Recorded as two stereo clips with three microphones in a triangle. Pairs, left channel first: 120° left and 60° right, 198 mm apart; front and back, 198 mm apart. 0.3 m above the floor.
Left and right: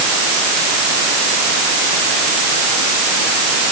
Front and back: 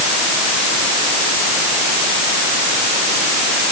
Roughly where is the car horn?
No car horn in this recording.